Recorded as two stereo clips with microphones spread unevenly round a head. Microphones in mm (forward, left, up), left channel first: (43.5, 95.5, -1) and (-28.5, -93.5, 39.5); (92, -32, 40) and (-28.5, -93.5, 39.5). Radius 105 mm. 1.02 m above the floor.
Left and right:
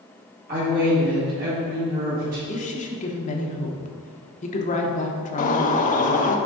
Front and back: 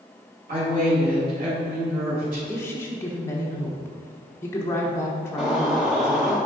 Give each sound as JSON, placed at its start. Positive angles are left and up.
{"t": 0.5, "sound": "a woman speaking", "azimuth_deg": -165, "distance_m": 1.9}
{"t": 2.5, "sound": "a woman speaking", "azimuth_deg": 95, "distance_m": 0.9}
{"t": 5.4, "sound": "a bird", "azimuth_deg": 120, "distance_m": 0.5}